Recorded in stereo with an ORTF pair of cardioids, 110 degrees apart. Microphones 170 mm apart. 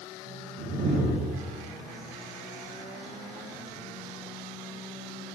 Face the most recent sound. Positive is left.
turn(degrees=-45)